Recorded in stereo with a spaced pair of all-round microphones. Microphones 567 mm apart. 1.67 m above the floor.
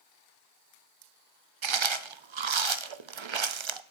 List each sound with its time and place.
1.6 s chewing: 55° right (ahead or behind), 0.6 m